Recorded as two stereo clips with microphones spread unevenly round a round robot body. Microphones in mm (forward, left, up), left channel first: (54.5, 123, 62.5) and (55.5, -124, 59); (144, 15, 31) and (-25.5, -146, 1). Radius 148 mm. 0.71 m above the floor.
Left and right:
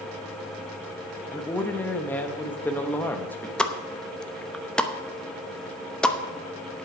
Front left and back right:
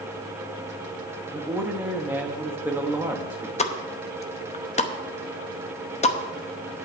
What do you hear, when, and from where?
1.3 s a man speaking: 165° left, 1.1 m
3.6 s a pop: 5° left, 0.9 m